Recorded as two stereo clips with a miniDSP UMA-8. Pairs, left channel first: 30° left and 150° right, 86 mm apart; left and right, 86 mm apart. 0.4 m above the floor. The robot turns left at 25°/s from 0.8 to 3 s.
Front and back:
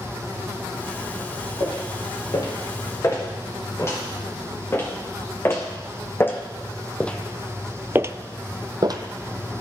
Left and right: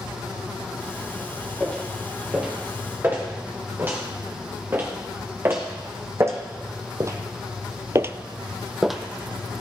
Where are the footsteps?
10° left, 4 m; by 9.0 s straight behind, 0.8 m.